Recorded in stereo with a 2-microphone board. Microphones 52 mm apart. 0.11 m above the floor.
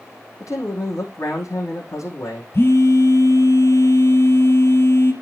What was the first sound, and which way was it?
A man speaking, 70° left (ahead or behind).